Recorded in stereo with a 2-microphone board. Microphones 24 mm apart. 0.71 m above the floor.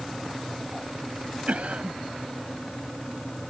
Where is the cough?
65° right (ahead or behind).